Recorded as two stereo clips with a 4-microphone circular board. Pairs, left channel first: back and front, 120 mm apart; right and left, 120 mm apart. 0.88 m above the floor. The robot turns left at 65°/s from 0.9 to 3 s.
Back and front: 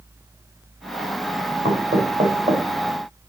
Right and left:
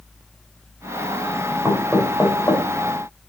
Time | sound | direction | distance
1.6 | knocking | 20° left | 3.5 m